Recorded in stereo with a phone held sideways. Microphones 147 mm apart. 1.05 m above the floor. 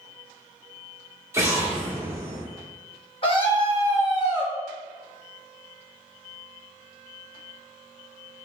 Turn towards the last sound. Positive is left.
turn(degrees=35)  # may be behind; listen again after turning